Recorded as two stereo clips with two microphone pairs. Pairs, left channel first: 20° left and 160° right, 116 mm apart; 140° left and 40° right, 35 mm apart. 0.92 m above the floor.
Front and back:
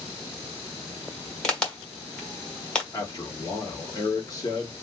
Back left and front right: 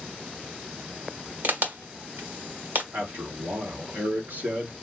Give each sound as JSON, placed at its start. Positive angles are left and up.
{"t": 1.4, "sound": "a crack", "azimuth_deg": -60, "distance_m": 1.5}
{"t": 2.9, "sound": "a man speaking", "azimuth_deg": -35, "distance_m": 1.8}